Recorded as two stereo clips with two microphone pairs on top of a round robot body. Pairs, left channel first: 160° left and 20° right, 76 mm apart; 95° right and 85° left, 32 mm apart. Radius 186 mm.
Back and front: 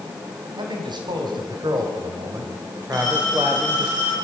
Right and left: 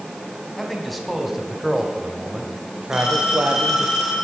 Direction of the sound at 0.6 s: 10° right.